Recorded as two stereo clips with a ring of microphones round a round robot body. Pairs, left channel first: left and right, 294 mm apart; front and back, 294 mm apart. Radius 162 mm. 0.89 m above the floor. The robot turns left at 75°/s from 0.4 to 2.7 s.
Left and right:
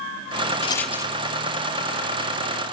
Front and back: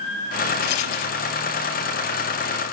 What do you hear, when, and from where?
0.6 s a rattle: 20° left, 0.9 m; by 1.2 s 20° right, 0.9 m